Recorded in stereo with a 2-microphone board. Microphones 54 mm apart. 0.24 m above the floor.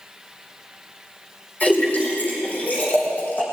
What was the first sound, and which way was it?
A splash, 30° left (ahead or behind).